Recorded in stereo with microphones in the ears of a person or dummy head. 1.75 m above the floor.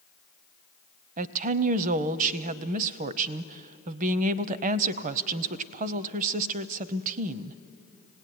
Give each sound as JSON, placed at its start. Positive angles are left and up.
{"t": 1.2, "sound": "a woman speaking", "side_deg": -40, "distance_m": 0.6}